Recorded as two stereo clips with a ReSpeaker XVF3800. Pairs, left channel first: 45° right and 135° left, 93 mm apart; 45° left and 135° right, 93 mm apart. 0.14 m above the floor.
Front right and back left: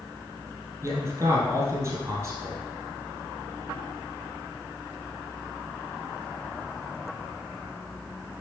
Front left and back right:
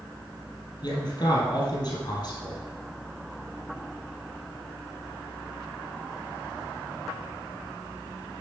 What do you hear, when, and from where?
0.8 s a man speaking: 75° left, 3 m